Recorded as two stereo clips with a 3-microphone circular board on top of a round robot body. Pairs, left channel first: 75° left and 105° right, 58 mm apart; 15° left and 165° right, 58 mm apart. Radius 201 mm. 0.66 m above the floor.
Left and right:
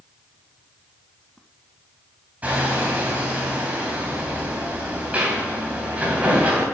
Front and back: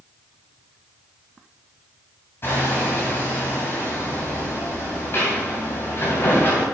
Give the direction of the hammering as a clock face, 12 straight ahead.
1 o'clock.